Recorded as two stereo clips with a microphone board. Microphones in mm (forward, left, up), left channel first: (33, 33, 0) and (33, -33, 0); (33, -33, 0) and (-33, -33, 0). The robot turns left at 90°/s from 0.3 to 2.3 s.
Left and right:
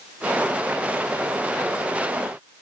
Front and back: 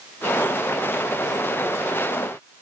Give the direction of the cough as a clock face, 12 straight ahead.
No cough in this recording.